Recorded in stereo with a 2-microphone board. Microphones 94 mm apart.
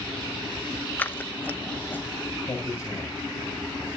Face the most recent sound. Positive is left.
turn(degrees=30)  # may be behind; listen again after turning